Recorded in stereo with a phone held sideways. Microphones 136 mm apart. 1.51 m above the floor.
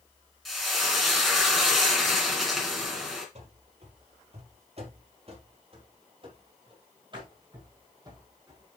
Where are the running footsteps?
55° right (ahead or behind), 2.5 m; by 8.7 s 30° right (ahead or behind), 4 m.